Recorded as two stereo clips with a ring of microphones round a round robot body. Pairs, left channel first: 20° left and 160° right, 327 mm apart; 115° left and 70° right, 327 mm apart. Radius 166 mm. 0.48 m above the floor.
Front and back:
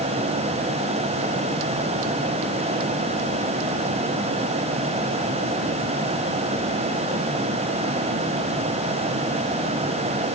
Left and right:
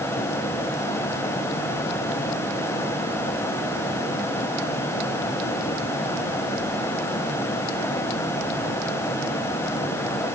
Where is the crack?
I don't hear a crack.